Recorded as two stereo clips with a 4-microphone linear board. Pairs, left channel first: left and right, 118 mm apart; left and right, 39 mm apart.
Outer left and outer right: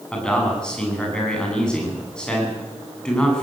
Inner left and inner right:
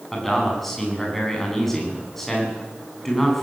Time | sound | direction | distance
0.1 | a man speaking | 5° left (ahead or behind) | 9 m